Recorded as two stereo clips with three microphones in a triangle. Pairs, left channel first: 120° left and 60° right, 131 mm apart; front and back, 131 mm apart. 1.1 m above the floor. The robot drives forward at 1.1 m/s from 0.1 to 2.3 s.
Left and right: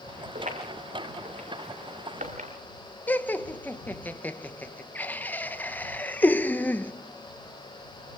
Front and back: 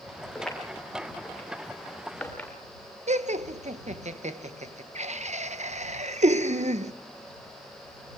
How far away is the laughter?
About 0.9 m.